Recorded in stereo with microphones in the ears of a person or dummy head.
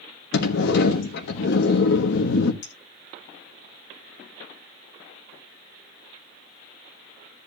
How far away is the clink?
About 2 m.